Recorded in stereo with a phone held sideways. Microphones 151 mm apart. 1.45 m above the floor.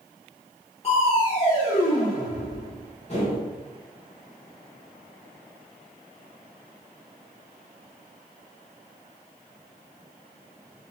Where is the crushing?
45° left (ahead or behind), 1.0 m.